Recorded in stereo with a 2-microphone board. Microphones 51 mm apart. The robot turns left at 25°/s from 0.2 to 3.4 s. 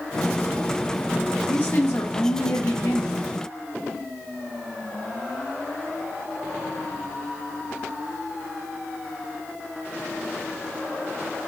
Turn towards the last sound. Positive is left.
turn(degrees=90)